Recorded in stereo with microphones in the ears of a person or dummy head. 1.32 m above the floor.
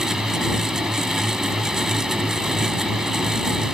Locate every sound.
0.0 s a fan: centre (ahead or behind)